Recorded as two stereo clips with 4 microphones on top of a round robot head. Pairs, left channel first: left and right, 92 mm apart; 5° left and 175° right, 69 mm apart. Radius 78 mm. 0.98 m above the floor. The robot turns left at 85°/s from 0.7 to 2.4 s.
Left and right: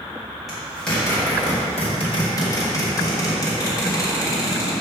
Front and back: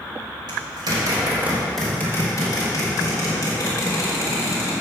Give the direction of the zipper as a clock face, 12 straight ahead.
6 o'clock.